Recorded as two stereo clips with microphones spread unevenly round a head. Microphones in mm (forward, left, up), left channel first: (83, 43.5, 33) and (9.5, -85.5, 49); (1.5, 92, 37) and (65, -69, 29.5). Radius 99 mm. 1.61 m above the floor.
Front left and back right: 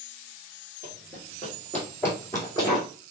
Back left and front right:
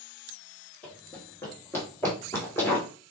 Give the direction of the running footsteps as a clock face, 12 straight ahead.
6 o'clock.